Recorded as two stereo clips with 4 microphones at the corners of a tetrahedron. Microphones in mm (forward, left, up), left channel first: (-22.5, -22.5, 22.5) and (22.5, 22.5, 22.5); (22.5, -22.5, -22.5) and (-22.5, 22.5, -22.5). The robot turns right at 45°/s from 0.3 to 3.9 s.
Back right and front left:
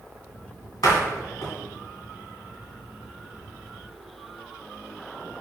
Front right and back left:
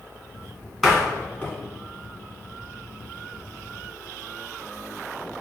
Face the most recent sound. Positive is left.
turn(degrees=5)